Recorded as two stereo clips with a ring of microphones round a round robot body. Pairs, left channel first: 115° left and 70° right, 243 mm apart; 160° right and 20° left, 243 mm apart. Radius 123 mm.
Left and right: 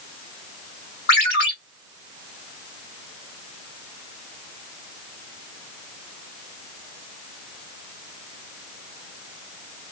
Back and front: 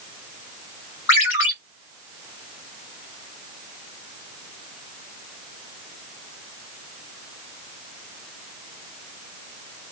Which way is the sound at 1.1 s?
165° left.